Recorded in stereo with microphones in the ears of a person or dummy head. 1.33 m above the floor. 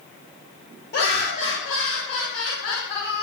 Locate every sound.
0.9 s laughter: 60° left (ahead or behind), 1.5 m; by 3.2 s 65° left (ahead or behind), 1.2 m